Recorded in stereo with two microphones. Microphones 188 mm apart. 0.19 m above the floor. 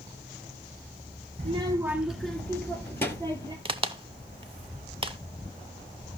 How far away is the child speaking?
About 0.7 m.